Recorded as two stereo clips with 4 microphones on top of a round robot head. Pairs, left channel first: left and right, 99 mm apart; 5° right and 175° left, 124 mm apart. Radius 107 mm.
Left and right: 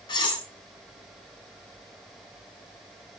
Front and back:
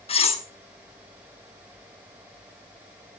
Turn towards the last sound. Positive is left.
turn(degrees=35)